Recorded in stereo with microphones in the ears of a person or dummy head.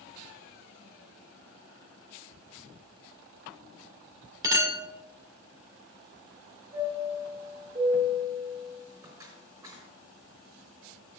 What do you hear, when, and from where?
4.4 s a clink: 20° right (ahead or behind), 2 m
6.7 s a chime: 25° right (ahead or behind), 4 m